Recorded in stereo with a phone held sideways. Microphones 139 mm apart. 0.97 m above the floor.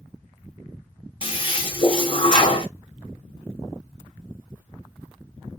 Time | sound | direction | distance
1.2 | a toilet flushing | 40° left (ahead or behind) | 1.0 m